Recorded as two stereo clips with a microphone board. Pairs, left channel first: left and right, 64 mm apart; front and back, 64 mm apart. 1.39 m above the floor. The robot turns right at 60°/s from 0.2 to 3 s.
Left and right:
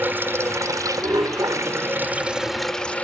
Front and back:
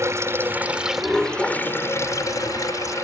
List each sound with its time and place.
0.0 s running water: 145° right; by 3.0 s 25° left